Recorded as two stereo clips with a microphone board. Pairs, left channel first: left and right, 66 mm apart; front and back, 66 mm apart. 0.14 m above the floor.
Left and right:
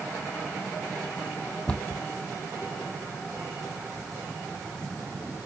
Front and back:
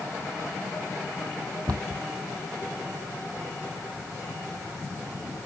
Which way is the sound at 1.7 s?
165° left.